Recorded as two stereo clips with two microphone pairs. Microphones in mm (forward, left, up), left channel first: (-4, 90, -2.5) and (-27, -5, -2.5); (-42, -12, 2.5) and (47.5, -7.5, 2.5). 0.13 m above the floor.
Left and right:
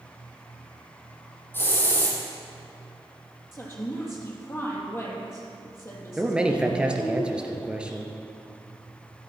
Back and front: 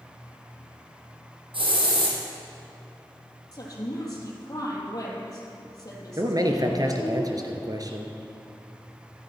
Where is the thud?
I don't hear a thud.